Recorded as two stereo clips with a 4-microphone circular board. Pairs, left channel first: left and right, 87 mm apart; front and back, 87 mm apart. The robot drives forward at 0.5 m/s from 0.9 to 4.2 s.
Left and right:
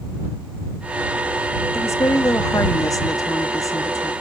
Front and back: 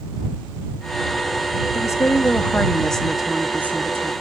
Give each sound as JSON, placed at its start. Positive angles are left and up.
{"t": 1.7, "sound": "a woman speaking", "azimuth_deg": 40, "distance_m": 1.1}